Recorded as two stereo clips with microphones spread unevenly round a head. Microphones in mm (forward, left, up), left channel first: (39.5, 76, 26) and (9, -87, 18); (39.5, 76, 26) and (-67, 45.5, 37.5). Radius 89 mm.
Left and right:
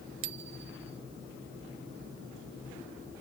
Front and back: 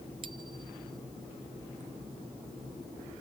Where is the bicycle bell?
105° right.